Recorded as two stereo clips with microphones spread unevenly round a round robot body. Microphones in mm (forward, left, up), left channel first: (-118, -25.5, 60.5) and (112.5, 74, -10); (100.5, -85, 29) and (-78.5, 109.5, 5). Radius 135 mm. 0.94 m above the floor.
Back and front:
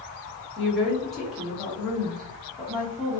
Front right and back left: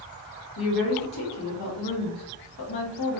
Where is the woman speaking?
60° right, 1.2 m.